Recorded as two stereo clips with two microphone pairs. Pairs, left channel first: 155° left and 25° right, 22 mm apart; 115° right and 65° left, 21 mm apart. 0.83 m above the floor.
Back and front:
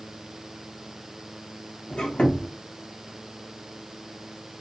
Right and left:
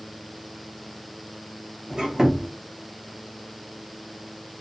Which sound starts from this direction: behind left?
A squeak, at 1.9 s.